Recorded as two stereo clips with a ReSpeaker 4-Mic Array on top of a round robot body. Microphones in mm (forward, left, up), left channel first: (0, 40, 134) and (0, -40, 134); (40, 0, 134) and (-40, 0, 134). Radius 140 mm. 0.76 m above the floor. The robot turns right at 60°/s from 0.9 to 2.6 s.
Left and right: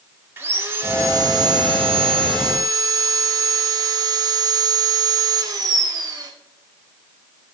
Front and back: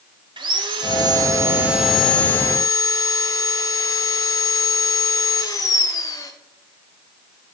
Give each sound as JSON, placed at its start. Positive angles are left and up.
{"t": 0.4, "sound": "sawing", "azimuth_deg": -155, "distance_m": 0.5}